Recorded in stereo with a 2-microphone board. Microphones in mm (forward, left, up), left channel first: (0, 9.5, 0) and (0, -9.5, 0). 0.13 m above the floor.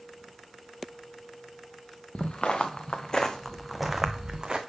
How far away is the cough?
I don't hear a cough.